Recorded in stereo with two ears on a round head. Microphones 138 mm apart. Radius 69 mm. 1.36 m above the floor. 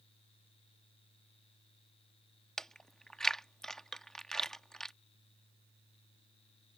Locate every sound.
2.6 s chewing: 5° left (ahead or behind)